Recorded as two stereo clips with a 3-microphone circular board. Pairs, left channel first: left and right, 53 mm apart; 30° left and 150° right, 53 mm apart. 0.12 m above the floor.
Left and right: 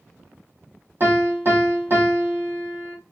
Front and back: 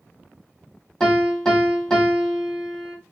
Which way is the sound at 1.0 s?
50° right.